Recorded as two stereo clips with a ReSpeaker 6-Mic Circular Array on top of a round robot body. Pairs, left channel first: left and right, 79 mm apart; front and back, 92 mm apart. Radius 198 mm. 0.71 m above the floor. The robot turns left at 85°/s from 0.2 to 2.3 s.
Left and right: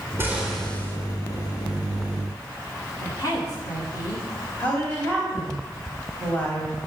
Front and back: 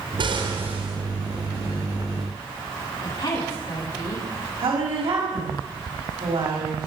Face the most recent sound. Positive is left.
turn(degrees=160)